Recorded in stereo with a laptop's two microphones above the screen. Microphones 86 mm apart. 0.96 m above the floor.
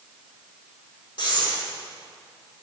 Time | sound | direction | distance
1.2 | breathing | 60° left (ahead or behind) | 1.6 m